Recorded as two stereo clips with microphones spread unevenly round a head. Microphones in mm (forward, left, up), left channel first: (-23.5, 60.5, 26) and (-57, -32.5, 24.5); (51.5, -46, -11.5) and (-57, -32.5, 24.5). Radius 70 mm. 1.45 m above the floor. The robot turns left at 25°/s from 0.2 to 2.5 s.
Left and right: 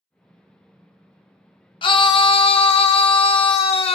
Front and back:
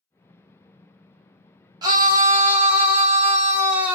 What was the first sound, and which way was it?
A scream, 105° left.